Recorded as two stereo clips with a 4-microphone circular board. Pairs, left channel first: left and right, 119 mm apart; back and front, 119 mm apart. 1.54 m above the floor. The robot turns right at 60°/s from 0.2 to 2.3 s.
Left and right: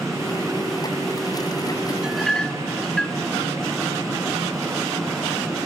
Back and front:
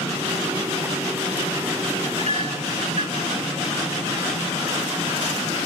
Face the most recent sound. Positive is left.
turn(degrees=5)